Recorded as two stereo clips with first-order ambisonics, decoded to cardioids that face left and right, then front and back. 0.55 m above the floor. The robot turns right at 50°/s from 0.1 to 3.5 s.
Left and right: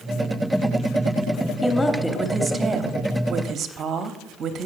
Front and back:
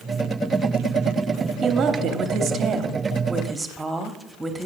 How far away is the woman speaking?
About 0.8 m.